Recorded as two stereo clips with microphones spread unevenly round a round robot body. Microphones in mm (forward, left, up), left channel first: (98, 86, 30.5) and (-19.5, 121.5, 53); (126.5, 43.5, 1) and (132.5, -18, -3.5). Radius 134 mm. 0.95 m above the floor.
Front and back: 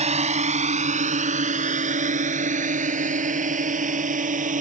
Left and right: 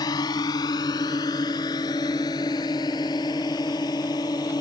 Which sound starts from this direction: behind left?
A drone, at 0.0 s.